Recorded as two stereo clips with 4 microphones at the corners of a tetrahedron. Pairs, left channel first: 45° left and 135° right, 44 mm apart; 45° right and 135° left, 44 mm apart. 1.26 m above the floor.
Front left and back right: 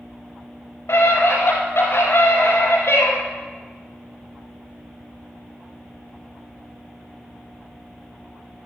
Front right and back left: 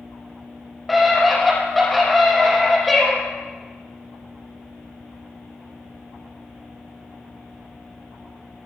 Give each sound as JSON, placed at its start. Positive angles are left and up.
{"t": 0.9, "sound": "a scream", "azimuth_deg": 45, "distance_m": 5.0}